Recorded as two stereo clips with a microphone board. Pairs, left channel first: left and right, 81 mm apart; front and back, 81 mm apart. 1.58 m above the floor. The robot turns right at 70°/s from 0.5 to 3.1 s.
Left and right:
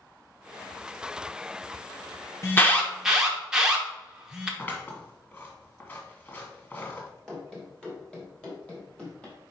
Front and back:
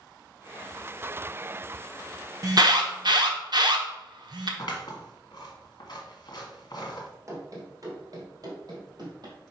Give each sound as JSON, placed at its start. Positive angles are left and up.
{"t": 2.4, "sound": "an alarm", "azimuth_deg": 140, "distance_m": 1.0}
{"t": 4.6, "sound": "scissors", "azimuth_deg": 30, "distance_m": 1.5}
{"t": 7.3, "sound": "running footsteps", "azimuth_deg": 170, "distance_m": 1.9}